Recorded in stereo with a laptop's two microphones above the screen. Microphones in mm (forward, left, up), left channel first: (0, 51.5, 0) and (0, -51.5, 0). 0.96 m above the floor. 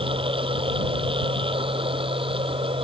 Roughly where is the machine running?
Right.